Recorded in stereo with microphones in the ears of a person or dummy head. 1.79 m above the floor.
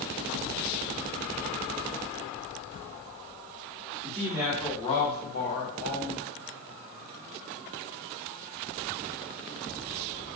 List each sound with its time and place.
4.0 s a woman speaking: 30° right (ahead or behind), 0.6 m; by 6.2 s 75° left (ahead or behind), 1.1 m